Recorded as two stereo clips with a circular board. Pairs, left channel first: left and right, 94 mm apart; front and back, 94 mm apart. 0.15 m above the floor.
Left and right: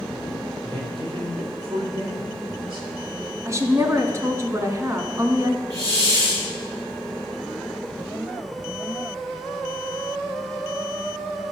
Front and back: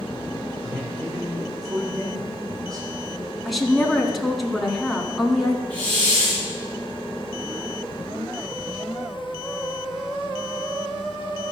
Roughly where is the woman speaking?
Right.